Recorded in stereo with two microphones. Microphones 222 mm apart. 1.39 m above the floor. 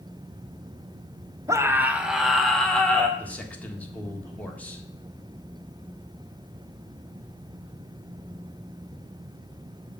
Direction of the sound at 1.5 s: 15° right (ahead or behind).